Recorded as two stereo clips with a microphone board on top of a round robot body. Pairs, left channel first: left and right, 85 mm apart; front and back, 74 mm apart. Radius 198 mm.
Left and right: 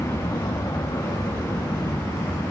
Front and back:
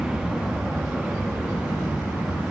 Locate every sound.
0.0 s an aircraft: 105° left; by 2.5 s 115° left